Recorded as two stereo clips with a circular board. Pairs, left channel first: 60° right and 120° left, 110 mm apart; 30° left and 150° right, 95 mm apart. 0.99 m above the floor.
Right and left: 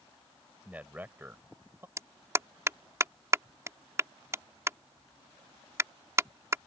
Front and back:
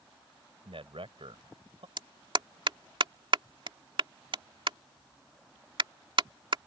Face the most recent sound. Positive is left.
turn(degrees=180)